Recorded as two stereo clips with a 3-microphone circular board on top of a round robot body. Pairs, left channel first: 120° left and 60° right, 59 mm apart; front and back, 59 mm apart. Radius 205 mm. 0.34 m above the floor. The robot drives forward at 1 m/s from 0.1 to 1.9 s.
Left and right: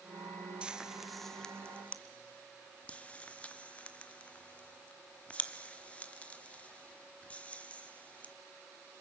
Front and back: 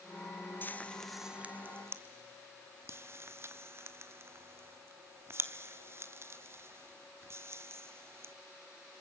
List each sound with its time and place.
0.6 s frying: straight ahead, 1.1 m; by 8.3 s straight behind, 1.3 m